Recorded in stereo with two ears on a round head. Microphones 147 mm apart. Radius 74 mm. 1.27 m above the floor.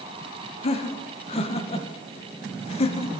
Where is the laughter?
40° left (ahead or behind), 1.1 m.